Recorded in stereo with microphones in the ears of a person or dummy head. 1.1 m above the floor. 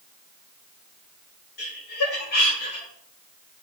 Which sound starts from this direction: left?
Laughter, at 1.6 s.